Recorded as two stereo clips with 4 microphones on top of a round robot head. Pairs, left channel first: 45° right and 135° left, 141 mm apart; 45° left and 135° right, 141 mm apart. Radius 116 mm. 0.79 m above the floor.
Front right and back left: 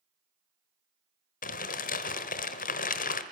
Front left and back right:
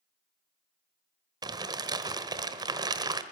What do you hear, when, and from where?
1.4 s crumpling: 75° right, 1.2 m